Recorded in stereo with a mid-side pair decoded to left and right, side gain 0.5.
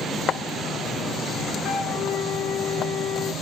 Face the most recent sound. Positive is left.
turn(degrees=65)